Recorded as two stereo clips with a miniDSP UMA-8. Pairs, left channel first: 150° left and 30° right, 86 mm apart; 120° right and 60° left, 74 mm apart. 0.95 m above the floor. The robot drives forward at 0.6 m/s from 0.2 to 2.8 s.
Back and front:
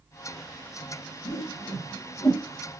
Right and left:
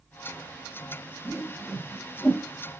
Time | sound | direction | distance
1.2 | a whoosh | 150° left | 1.4 m